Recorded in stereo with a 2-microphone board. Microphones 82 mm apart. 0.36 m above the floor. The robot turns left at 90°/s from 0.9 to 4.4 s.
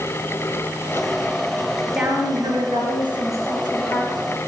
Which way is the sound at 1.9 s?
5° right.